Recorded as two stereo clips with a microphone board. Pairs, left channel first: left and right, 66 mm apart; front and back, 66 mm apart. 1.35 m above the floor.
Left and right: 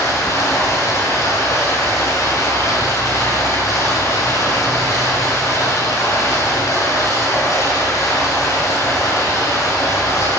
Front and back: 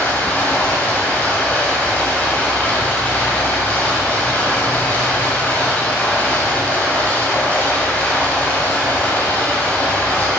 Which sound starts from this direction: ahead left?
Running water, at 0.0 s.